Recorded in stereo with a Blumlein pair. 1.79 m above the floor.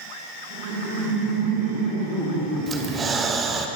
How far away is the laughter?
About 2.5 m.